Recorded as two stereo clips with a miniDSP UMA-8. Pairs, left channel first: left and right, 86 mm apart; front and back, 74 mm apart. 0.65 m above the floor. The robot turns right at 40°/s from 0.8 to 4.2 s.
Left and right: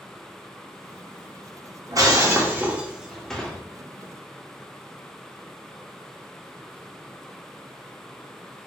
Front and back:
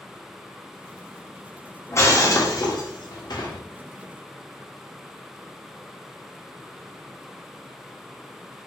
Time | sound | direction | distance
1.9 | breaking glass | 50° right | 1.0 m